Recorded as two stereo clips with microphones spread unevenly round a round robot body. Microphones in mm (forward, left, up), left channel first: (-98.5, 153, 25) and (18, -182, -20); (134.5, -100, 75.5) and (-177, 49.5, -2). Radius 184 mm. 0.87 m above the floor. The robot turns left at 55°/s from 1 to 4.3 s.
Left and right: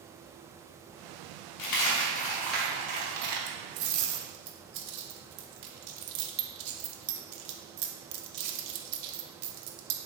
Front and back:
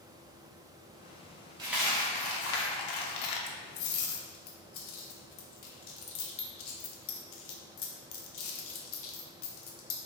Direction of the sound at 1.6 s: 75° left.